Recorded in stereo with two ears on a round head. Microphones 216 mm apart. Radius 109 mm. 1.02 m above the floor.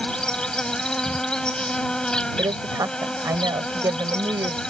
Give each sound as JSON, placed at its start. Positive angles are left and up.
{"t": 0.0, "sound": "an insect", "side_deg": 5}
{"t": 2.4, "sound": "a woman speaking", "side_deg": -10}